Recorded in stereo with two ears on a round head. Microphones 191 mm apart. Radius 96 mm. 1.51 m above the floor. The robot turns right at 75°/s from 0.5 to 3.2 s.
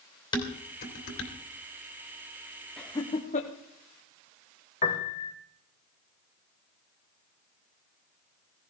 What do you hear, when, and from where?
0.3 s dishes clattering: 20° left (ahead or behind), 2.5 m; by 1.3 s 75° left (ahead or behind), 2.5 m
2.8 s laughter: centre (ahead or behind), 1.1 m; by 3.5 s 35° left (ahead or behind), 1.1 m
4.8 s a piano: 35° left (ahead or behind), 1.2 m